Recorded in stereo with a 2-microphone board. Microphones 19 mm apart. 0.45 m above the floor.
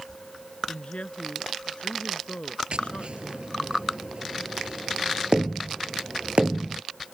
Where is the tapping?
60° right (ahead or behind).